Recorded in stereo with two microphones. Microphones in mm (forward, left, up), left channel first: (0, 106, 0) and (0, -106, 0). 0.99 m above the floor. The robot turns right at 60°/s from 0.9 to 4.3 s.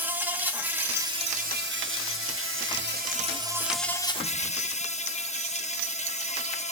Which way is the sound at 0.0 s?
170° right.